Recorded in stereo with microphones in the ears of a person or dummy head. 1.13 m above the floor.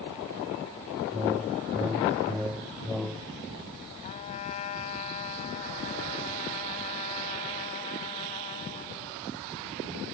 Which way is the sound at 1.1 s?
5° right (ahead or behind).